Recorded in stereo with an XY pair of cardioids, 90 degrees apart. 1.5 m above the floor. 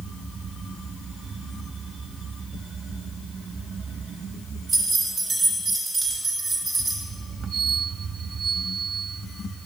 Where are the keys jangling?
45° right, 2.5 m.